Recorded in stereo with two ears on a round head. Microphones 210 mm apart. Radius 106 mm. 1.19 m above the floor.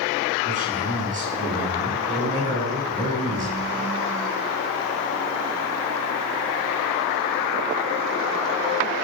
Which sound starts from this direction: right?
A man speaking, at 0.4 s.